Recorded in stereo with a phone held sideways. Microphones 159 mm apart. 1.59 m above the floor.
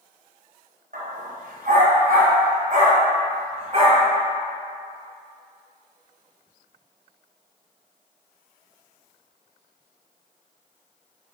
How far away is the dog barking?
About 3 m.